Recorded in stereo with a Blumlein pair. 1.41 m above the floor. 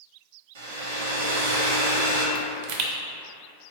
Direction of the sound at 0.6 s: 65° right.